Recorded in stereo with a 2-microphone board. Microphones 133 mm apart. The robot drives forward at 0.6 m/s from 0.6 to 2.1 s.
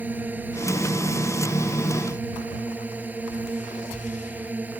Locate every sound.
0.0 s a drone: 10° right (ahead or behind)